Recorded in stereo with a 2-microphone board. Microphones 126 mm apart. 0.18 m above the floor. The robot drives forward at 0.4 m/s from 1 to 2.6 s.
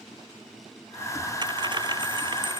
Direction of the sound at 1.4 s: 35° right (ahead or behind).